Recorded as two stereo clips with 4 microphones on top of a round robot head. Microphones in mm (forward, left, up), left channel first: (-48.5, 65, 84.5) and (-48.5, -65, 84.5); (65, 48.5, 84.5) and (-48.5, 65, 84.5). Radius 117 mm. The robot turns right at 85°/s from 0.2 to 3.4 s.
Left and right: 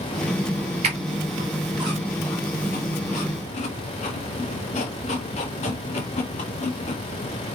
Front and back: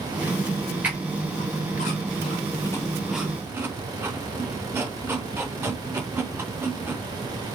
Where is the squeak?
110° right, 0.7 m; by 7.0 s 110° left, 0.7 m.